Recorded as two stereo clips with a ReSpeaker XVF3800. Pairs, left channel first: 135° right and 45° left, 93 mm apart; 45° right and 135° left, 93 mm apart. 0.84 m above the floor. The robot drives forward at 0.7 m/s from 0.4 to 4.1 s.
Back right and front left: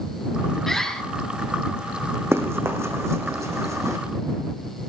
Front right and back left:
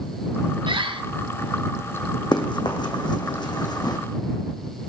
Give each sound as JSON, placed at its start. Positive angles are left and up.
{"t": 0.7, "sound": "a bird", "azimuth_deg": 140, "distance_m": 1.5}
{"t": 2.3, "sound": "running footsteps", "azimuth_deg": -15, "distance_m": 3.0}